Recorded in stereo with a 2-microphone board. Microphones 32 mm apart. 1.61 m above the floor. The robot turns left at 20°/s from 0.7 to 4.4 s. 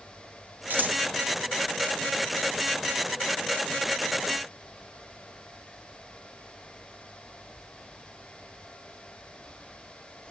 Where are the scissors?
60° right (ahead or behind), 0.9 m; by 1.0 s 55° right (ahead or behind), 0.9 m.